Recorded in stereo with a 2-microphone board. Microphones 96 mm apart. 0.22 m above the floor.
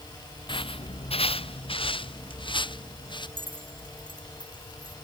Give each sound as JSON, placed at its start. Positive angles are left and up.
{"t": 0.5, "sound": "footsteps", "side_deg": 55}
{"t": 3.4, "sound": "keys jangling", "side_deg": -60}